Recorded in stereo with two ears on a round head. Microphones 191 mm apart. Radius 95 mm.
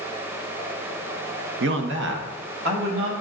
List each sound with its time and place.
1.6 s a man speaking: 55° right (ahead or behind), 0.7 m; by 3.1 s 45° right (ahead or behind), 2.5 m